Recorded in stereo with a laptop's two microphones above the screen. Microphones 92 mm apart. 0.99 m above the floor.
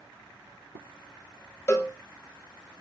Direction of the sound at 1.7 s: 30° left (ahead or behind).